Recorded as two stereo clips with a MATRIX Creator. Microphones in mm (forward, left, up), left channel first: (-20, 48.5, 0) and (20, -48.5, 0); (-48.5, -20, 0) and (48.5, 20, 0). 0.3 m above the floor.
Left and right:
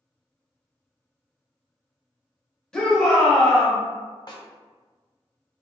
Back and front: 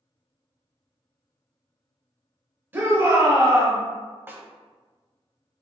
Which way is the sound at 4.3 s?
85° left.